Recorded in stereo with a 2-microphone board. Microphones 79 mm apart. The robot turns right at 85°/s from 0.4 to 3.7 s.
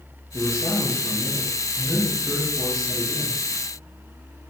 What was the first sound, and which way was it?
A man speaking, 55° left.